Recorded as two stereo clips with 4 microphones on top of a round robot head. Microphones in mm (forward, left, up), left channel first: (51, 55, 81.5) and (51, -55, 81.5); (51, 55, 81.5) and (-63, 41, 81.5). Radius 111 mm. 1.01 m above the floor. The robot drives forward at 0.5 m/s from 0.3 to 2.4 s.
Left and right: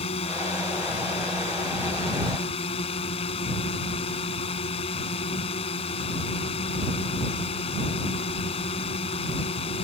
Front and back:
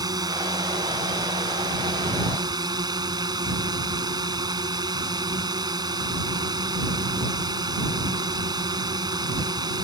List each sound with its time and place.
0.0 s a drone: 130° left